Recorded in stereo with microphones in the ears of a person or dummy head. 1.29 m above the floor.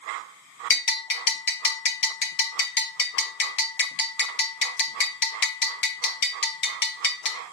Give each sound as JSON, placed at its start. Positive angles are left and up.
{"t": 0.7, "sound": "a bell", "side_deg": 60, "distance_m": 1.3}